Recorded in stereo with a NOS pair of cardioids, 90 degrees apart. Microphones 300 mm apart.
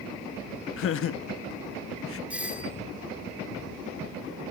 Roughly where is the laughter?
Ahead left.